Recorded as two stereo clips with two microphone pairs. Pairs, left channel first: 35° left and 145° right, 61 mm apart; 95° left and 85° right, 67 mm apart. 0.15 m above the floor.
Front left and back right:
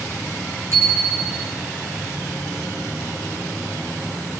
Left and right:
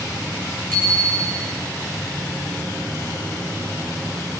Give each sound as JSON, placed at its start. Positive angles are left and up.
{"t": 0.7, "sound": "a bicycle bell", "azimuth_deg": 170, "distance_m": 10.0}